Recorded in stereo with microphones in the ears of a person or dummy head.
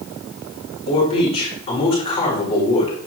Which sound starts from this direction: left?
A man speaking, at 0.9 s.